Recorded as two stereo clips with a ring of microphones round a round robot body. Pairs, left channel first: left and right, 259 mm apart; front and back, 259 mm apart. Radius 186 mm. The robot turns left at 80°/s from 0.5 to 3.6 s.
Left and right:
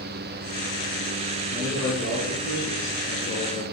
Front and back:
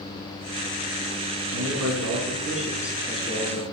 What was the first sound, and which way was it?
A man speaking, 155° right.